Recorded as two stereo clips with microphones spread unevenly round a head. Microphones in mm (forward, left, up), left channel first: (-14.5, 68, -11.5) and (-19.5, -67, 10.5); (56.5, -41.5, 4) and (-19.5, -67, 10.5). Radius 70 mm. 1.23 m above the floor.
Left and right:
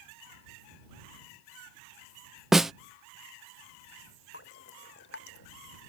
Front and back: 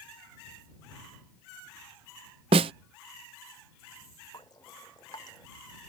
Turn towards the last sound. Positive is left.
turn(degrees=85)